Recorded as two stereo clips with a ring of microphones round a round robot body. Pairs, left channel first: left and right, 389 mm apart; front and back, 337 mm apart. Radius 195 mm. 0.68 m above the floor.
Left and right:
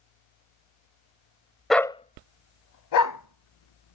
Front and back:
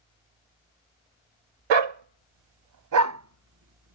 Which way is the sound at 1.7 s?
Straight behind.